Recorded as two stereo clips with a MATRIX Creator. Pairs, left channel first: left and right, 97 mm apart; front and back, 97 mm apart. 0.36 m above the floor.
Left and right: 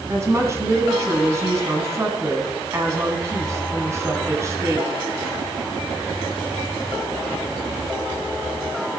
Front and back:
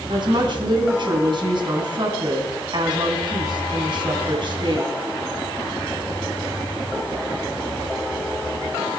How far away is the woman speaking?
About 3.5 m.